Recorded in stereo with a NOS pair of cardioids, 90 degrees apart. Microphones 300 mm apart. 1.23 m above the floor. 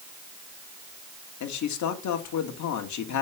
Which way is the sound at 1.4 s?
70° left.